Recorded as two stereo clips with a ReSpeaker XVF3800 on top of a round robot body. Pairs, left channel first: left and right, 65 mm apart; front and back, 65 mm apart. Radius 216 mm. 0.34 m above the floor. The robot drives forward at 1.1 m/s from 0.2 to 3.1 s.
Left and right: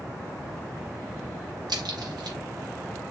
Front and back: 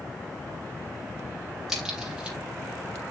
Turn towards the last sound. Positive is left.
turn(degrees=-120)